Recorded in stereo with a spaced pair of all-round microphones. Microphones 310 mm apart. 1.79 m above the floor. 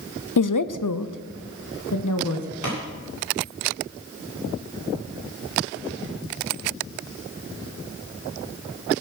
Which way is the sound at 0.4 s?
80° left.